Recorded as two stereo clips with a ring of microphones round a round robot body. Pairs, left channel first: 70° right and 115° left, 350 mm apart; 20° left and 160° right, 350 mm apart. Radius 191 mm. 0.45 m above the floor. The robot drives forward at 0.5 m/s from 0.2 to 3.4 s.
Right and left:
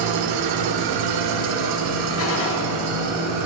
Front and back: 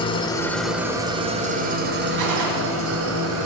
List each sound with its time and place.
0.0 s an engine running: 100° left, 0.9 m; by 3.5 s 155° left, 1.9 m
2.2 s a gunshot: 120° right, 2 m